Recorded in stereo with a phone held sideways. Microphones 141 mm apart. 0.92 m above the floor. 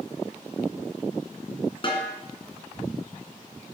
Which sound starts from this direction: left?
A snare drum, at 1.8 s.